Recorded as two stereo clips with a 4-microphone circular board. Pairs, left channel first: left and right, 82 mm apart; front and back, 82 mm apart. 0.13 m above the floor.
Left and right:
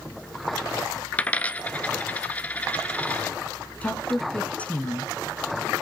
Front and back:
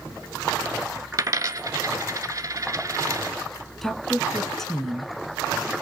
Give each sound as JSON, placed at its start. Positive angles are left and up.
{"t": 1.1, "sound": "a dropped coin", "azimuth_deg": 155, "distance_m": 0.7}
{"t": 3.8, "sound": "a woman speaking", "azimuth_deg": 70, "distance_m": 1.0}